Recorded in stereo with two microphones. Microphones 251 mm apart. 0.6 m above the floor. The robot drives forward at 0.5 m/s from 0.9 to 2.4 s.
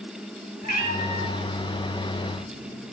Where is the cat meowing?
25° right (ahead or behind), 2 m; by 2.9 s 35° right (ahead or behind), 1.6 m.